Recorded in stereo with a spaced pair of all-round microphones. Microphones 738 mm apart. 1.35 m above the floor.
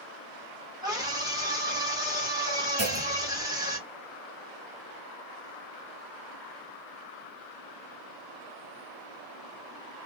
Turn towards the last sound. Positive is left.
turn(degrees=-20)  # may be behind; listen again after turning